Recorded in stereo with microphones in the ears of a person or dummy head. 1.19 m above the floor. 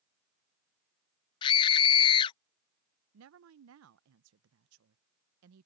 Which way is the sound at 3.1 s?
75° right (ahead or behind).